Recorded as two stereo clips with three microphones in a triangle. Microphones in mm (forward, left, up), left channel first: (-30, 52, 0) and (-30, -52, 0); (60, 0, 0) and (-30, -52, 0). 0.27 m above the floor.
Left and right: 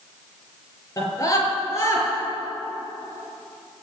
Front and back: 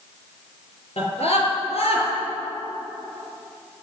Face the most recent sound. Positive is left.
turn(degrees=30)